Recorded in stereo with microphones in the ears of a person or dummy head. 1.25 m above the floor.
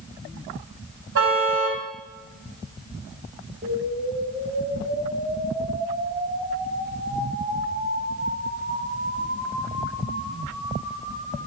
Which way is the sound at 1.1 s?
65° right (ahead or behind).